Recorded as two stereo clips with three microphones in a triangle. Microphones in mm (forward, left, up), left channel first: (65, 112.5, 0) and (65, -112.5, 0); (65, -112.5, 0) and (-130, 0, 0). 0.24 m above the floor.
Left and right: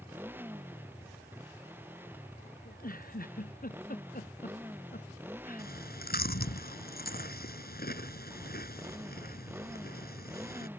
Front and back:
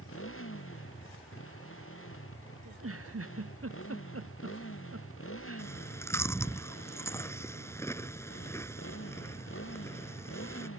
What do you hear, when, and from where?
0.0 s a motorcycle: 10° right
2.6 s a giggle: 140° left
5.6 s chewing: 45° left